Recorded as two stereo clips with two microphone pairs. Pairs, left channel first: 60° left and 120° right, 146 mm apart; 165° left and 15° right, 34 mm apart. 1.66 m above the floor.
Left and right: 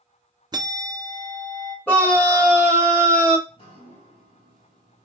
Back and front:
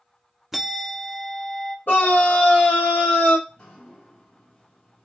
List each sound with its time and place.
0.5 s a bell: 85° right, 0.5 m
1.9 s a scream: 140° left, 2.5 m
3.5 s dripping: 100° left, 3 m